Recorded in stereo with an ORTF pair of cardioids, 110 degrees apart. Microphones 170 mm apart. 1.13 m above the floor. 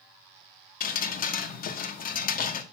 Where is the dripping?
55° left, 0.8 m.